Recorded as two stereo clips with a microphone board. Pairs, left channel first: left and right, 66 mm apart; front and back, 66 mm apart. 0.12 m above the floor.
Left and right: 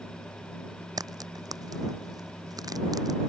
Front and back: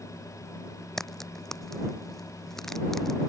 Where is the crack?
85° right.